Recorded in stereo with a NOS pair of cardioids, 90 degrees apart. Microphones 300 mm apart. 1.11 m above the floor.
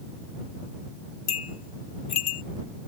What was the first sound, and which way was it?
A bell, 60° left.